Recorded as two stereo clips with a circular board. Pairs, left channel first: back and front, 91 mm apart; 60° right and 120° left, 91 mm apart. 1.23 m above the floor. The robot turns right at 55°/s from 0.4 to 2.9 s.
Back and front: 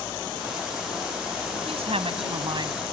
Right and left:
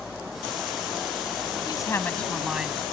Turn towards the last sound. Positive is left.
turn(degrees=55)